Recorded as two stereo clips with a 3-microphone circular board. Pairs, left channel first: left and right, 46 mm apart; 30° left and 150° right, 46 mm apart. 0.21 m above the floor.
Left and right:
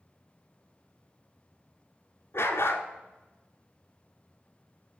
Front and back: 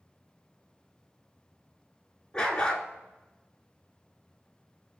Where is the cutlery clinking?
No cutlery clinking in this recording.